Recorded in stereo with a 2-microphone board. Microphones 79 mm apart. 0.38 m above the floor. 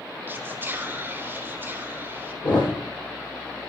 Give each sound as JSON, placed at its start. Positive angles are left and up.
{"t": 0.3, "sound": "whispering", "side_deg": -25, "distance_m": 1.2}
{"t": 2.4, "sound": "a thud", "side_deg": 65, "distance_m": 4.5}